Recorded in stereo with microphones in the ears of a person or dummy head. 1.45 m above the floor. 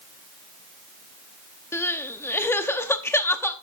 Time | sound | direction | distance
1.7 | crying | 10° left (ahead or behind) | 0.8 m